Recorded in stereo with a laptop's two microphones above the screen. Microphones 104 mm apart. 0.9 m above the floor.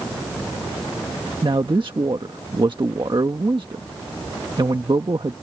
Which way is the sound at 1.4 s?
50° right (ahead or behind).